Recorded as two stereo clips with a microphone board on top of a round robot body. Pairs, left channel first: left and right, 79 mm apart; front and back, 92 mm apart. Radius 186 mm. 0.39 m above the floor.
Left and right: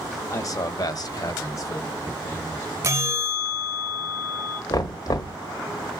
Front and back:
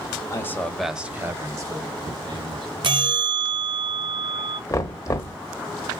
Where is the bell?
150° right, 0.9 m.